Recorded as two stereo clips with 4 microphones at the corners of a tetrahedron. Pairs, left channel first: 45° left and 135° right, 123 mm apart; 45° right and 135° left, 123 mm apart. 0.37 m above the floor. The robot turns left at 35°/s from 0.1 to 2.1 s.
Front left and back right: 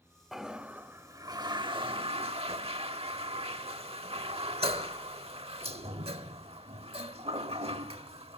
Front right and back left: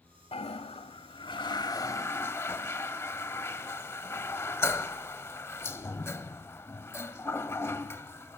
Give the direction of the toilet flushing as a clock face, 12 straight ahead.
2 o'clock.